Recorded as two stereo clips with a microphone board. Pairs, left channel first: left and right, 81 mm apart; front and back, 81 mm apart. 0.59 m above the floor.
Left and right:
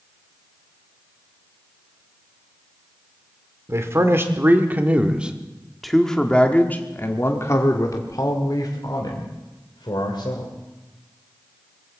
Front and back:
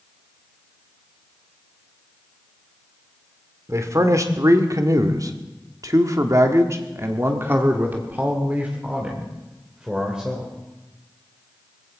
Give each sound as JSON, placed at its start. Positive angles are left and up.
{"t": 3.7, "sound": "a man speaking", "azimuth_deg": -135, "distance_m": 1.8}